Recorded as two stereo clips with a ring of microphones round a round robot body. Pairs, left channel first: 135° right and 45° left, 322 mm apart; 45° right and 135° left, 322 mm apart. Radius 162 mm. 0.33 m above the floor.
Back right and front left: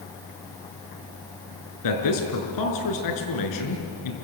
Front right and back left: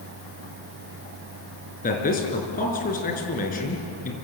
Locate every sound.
1.8 s a man speaking: 110° right, 5 m